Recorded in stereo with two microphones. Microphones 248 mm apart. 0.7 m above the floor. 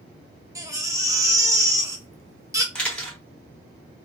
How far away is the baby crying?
About 0.7 m.